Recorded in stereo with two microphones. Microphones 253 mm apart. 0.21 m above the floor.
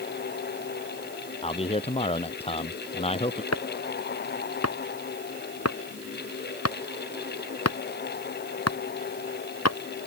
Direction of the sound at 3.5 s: 80° left.